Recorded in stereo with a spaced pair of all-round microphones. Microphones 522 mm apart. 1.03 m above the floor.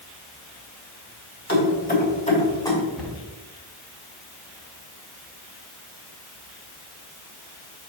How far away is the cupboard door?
About 2.5 m.